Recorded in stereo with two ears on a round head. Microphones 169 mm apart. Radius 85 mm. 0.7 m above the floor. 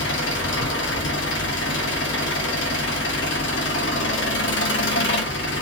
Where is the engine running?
70° left (ahead or behind), 0.9 m.